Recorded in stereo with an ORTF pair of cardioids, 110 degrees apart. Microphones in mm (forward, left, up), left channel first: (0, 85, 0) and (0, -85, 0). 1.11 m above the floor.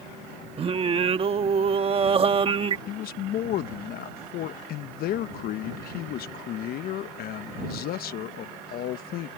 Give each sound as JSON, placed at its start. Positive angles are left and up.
{"t": 0.6, "sound": "singing", "azimuth_deg": -35}
{"t": 2.9, "sound": "a man speaking", "azimuth_deg": 65}